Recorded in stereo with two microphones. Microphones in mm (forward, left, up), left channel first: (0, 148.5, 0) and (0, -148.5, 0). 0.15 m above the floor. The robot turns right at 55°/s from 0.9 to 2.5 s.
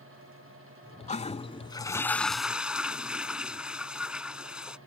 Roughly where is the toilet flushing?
Left.